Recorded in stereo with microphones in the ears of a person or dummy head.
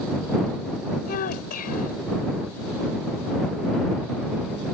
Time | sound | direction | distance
1.1 | a child speaking | 50° left (ahead or behind) | ?